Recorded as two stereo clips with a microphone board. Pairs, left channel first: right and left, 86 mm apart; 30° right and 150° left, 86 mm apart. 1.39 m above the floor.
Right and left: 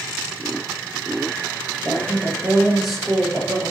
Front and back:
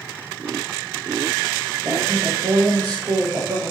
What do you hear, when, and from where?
1.8 s a woman speaking: 175° left, 8 m